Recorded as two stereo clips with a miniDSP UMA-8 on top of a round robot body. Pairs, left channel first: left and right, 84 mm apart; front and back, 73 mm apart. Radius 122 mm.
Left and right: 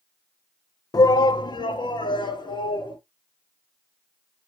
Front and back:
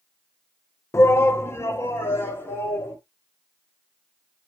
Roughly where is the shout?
Ahead left.